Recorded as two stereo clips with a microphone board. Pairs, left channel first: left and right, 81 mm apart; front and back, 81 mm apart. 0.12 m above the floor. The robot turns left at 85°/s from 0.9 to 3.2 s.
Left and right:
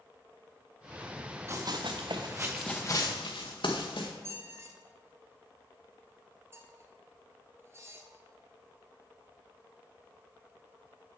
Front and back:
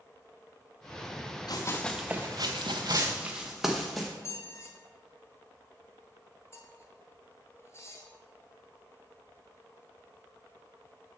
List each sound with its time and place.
1.5 s running footsteps: 30° right, 1.0 m; by 4.1 s 90° left, 1.7 m
4.2 s a squeak: 45° right, 1.1 m